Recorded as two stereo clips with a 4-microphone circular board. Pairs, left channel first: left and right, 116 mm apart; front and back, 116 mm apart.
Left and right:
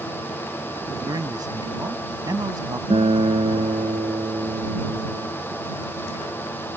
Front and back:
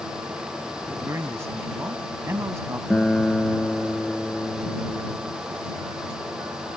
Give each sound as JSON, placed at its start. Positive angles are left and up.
{"t": 1.1, "sound": "a man speaking", "azimuth_deg": -125}
{"t": 2.9, "sound": "a guitar", "azimuth_deg": -80}